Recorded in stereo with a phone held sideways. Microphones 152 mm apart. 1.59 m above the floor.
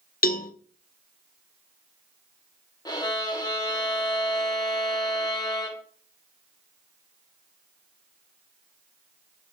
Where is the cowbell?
75° left (ahead or behind), 0.5 m.